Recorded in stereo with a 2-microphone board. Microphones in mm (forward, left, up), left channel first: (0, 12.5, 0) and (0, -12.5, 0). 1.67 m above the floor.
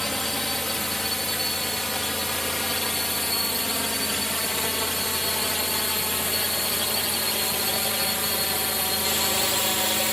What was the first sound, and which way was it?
A drone, 10° left (ahead or behind).